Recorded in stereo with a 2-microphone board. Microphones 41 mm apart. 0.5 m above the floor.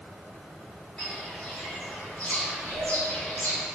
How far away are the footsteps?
About 1.9 m.